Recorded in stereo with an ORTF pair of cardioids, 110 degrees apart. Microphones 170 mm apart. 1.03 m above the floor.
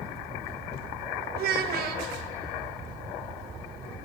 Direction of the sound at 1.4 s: 65° right.